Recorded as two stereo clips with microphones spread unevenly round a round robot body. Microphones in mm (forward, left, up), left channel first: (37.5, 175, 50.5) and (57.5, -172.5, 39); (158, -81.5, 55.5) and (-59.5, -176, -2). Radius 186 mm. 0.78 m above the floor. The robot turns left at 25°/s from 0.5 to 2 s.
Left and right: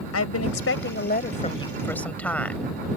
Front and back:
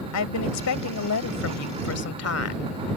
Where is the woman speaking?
45° left; by 2.7 s 10° left.